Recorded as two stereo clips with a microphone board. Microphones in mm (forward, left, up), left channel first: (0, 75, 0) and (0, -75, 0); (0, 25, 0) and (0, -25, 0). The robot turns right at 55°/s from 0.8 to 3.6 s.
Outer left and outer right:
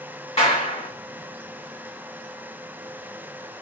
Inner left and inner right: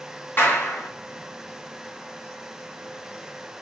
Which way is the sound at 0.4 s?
45° left (ahead or behind).